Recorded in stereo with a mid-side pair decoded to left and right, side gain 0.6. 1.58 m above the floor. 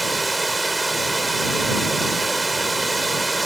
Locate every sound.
0.0 s running water: 15° right